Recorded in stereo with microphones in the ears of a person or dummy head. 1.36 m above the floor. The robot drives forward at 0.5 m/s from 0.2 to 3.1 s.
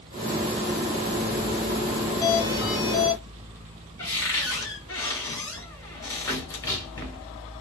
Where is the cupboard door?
20° left (ahead or behind), 0.9 m.